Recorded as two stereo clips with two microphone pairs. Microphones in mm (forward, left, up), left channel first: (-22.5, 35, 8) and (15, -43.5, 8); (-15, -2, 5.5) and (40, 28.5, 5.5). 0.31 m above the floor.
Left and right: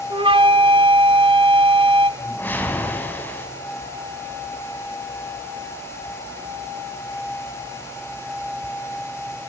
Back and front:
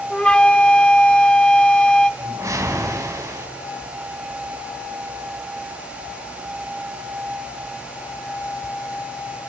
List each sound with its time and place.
0.1 s a flute: 75° right, 0.7 m
2.2 s a whoosh: 50° left, 2.5 m